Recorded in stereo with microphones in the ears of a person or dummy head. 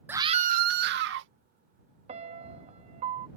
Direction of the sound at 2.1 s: 35° right (ahead or behind).